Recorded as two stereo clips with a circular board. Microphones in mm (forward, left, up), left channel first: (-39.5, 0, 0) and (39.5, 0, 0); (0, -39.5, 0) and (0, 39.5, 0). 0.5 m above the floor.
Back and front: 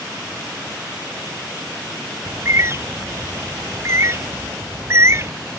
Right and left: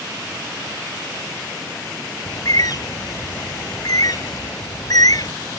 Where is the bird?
55° right.